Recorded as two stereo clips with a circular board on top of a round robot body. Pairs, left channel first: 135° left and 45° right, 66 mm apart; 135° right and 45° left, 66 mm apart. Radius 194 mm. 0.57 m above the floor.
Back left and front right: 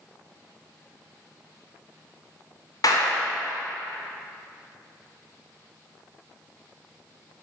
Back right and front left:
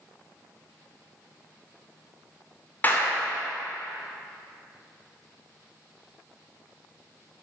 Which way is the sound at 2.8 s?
160° left.